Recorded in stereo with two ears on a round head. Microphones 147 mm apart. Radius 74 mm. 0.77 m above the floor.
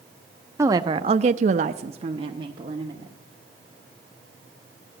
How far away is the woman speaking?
About 0.8 m.